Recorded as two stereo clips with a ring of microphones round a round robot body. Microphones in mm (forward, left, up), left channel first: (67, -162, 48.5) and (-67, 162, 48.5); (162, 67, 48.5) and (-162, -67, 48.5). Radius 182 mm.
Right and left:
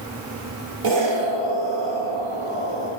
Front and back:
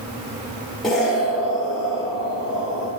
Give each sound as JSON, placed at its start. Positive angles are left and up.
{"t": 0.8, "sound": "an explosion", "azimuth_deg": 110, "distance_m": 1.8}